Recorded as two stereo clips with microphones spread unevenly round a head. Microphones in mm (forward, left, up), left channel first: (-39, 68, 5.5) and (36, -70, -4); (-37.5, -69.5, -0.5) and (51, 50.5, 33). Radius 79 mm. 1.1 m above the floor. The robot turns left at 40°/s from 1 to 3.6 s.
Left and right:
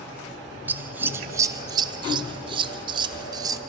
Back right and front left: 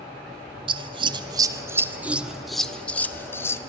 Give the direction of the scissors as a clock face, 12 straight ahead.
12 o'clock.